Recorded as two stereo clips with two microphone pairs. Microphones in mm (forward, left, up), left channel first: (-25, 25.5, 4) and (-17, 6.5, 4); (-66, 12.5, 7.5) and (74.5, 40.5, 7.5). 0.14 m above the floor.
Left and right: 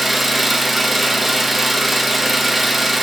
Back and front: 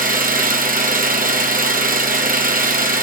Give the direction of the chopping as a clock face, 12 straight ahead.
I don't hear chopping.